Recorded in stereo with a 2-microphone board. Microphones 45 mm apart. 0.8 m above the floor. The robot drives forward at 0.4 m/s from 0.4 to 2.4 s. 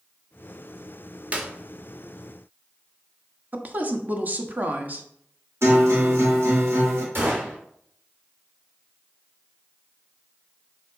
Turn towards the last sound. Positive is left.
turn(degrees=-55)  # may be behind; listen again after turning